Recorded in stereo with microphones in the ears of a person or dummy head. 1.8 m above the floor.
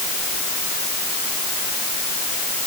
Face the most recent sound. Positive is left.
No sound to turn to.